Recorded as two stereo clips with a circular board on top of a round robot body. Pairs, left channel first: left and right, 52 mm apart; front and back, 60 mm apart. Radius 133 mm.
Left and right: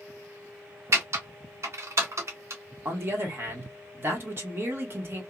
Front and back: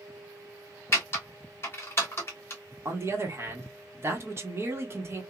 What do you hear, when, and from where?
0.9 s typing on a keyboard: 55° right, 1.6 m
2.9 s a man speaking: 135° right, 1.5 m